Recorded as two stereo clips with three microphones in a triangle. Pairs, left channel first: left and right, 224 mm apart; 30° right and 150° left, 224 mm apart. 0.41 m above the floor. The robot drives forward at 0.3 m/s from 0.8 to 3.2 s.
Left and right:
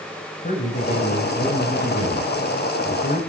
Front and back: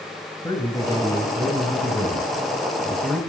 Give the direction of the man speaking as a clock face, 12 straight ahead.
11 o'clock.